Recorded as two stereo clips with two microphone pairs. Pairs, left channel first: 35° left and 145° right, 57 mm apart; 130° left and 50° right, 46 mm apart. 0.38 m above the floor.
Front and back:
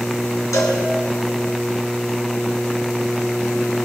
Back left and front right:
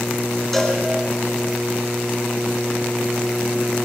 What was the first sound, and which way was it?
A cowbell, 45° left.